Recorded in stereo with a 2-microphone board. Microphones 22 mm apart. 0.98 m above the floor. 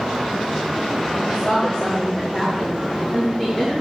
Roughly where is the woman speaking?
Centre.